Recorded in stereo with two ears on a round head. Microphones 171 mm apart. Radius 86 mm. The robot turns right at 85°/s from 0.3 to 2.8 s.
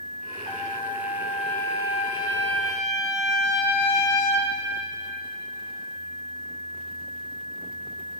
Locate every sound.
0.5 s a trumpet: 55° right, 1.7 m; by 4.5 s 145° left, 1.7 m